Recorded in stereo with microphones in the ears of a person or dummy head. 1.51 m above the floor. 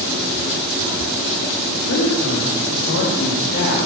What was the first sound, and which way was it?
A woman speaking, 80° left.